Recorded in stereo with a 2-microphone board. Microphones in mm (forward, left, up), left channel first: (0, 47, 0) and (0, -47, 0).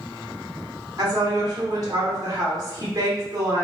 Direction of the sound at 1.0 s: 40° right (ahead or behind).